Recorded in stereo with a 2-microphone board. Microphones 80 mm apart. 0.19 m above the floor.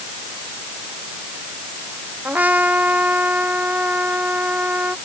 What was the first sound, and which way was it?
A trumpet, 20° right (ahead or behind).